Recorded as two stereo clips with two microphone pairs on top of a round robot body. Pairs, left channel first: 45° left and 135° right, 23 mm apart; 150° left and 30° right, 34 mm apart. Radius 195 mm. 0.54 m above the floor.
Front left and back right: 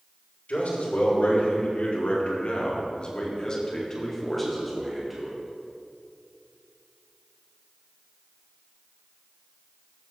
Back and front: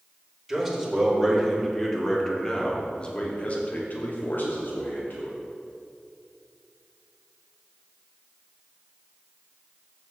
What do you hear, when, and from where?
0.5 s a man speaking: 55° left, 3 m; by 5.4 s 155° left, 2 m